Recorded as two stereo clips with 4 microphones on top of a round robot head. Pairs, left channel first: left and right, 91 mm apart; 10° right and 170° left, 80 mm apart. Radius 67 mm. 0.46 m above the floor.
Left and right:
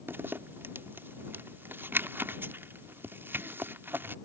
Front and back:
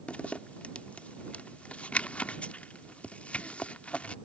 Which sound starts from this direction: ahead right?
A zipper, at 0.1 s.